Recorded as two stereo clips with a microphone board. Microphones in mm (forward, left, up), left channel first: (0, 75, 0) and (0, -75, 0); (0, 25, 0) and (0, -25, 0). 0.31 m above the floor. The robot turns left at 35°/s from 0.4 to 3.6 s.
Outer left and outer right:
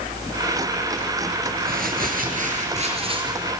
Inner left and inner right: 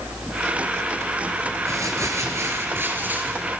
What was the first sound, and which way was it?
Crumpling, 90° right.